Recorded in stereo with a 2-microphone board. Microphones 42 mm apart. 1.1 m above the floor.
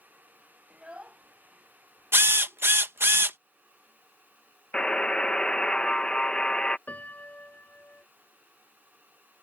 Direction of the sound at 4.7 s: 25° left (ahead or behind).